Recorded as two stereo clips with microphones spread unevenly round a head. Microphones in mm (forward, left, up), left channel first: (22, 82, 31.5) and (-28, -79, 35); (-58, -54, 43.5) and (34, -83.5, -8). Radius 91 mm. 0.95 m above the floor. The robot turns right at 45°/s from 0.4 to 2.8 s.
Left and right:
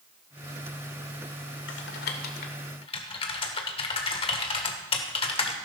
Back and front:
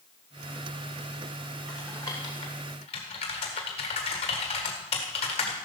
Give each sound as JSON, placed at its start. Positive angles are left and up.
{"t": 1.7, "sound": "typing on a keyboard", "azimuth_deg": 80, "distance_m": 1.5}